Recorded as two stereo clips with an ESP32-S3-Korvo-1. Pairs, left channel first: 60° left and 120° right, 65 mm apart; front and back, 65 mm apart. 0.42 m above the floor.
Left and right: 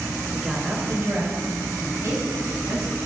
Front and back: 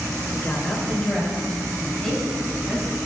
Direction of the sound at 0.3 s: 40° right.